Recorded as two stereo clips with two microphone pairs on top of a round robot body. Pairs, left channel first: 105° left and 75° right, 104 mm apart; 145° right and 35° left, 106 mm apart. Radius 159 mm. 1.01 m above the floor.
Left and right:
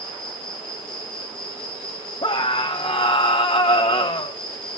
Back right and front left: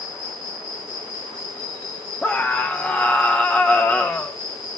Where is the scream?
135° left, 0.8 m.